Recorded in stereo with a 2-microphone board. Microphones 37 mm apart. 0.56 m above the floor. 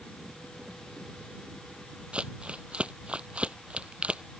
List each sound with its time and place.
2.1 s crumpling: 30° right (ahead or behind)